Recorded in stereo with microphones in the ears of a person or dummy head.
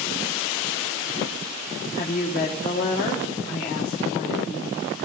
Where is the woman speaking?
35° left (ahead or behind), 1.0 m.